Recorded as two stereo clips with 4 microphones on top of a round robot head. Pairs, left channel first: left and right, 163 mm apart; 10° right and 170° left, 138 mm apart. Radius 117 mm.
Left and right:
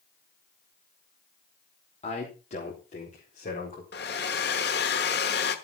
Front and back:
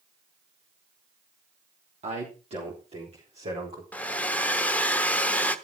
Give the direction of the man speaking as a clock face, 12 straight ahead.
8 o'clock.